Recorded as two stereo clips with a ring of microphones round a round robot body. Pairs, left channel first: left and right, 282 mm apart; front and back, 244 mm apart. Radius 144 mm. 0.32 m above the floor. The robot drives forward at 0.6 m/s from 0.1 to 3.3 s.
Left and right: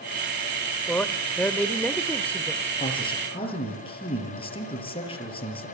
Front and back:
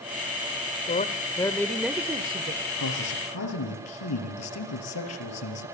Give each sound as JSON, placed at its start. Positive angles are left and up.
{"t": 0.9, "sound": "a man speaking", "azimuth_deg": 10, "distance_m": 1.1}
{"t": 2.8, "sound": "a man speaking", "azimuth_deg": 15, "distance_m": 7.0}